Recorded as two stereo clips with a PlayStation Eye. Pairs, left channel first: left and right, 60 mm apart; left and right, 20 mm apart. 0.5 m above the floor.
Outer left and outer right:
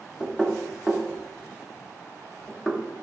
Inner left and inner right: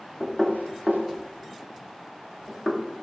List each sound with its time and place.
0.2 s knocking: 10° left (ahead or behind), 1.1 m